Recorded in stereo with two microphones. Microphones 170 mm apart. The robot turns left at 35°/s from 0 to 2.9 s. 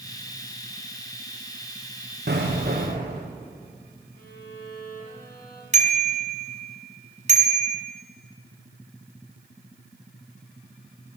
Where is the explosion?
75° right (ahead or behind), 5 m; by 3.2 s 55° right (ahead or behind), 5 m.